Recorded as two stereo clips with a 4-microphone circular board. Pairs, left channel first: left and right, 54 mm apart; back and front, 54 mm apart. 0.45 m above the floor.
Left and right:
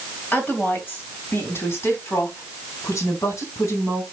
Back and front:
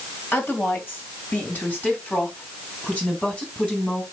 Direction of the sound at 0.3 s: 140° left.